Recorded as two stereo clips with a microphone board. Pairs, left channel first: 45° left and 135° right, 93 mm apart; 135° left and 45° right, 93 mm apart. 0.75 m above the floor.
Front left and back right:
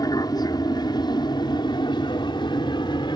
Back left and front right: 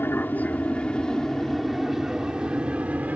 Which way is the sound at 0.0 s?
75° left.